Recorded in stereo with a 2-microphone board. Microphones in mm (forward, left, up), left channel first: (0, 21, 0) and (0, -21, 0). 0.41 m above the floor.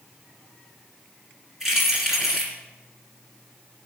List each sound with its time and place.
1.6 s keys jangling: 5° right (ahead or behind), 3 m